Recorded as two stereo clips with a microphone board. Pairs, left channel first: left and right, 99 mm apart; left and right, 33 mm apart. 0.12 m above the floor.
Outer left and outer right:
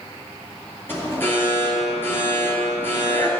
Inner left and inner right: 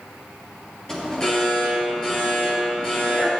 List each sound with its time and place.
0.9 s an alarm: 20° left (ahead or behind), 2 m